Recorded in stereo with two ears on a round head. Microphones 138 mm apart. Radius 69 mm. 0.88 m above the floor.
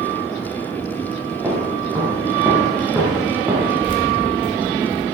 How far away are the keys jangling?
About 2.5 m.